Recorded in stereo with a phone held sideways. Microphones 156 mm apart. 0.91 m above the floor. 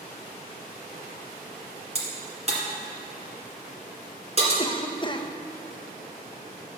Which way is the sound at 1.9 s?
40° right (ahead or behind).